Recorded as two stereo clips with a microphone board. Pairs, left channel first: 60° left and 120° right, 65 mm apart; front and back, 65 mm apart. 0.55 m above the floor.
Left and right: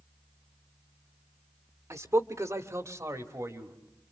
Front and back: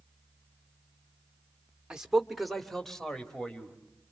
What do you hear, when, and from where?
1.9 s a man speaking: 105° right, 1.2 m; by 3.8 s 80° right, 3 m